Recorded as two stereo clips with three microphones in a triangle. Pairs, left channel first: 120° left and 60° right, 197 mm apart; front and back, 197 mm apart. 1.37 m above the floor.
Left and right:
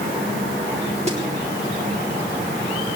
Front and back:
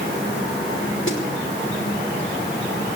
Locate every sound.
1.1 s a snare drum: 5° right, 5.5 m